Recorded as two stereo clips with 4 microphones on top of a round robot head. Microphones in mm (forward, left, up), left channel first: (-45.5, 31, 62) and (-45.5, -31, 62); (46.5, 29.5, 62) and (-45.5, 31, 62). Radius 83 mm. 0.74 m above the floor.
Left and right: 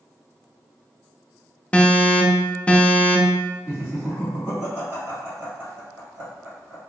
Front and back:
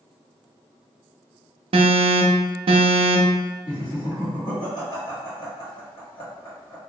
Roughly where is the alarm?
Behind.